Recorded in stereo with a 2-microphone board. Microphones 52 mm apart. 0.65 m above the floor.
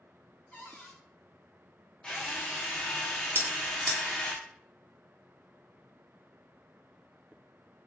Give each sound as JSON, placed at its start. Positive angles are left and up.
{"t": 0.5, "sound": "a cupboard door", "side_deg": 60, "distance_m": 1.8}
{"t": 2.0, "sound": "a drill", "side_deg": 20, "distance_m": 0.8}
{"t": 3.4, "sound": "a bell", "side_deg": -50, "distance_m": 0.9}